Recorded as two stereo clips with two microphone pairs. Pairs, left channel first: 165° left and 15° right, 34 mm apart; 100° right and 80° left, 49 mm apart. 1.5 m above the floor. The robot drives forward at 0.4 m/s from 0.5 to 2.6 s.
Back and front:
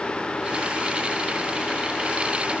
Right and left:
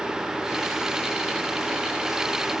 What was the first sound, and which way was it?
Only background noise.